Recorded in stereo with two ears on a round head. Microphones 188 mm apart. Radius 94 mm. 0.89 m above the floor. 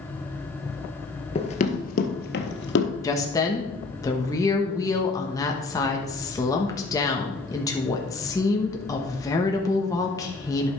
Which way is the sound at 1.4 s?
25° left (ahead or behind).